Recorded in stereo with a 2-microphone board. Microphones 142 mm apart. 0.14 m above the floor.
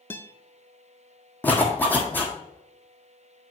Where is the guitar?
15° left (ahead or behind), 0.6 m.